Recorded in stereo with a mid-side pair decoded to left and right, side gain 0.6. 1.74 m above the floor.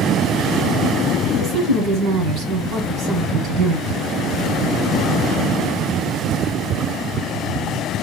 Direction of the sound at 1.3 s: 70° right.